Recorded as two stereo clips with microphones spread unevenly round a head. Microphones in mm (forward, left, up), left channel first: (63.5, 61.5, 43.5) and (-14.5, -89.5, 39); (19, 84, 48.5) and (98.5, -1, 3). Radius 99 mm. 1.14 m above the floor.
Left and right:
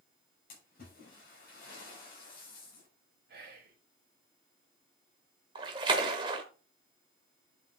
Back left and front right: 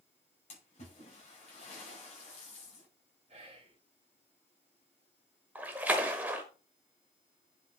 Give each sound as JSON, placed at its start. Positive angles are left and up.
{"t": 0.5, "sound": "a splash", "azimuth_deg": 105, "distance_m": 6.0}
{"t": 3.3, "sound": "whispering", "azimuth_deg": -95, "distance_m": 1.6}
{"t": 5.5, "sound": "a splash", "azimuth_deg": -160, "distance_m": 0.9}